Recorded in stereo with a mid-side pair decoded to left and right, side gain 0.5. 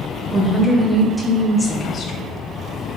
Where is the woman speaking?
20° right, 0.9 m; by 2.3 s 55° left, 0.7 m.